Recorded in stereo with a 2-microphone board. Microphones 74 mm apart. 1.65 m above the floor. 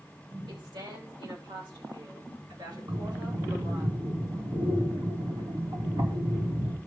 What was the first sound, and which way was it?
A woman speaking, 90° right.